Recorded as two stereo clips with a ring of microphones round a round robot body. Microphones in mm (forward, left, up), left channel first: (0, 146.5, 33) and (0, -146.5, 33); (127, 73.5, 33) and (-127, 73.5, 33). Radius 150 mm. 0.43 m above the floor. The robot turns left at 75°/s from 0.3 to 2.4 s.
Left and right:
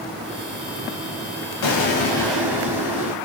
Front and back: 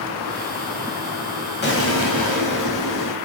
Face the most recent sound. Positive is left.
turn(degrees=-5)